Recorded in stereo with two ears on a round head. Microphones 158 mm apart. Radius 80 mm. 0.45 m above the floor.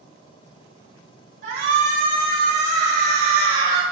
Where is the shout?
50° right (ahead or behind), 2 m; by 3.8 s 25° right (ahead or behind), 1.4 m.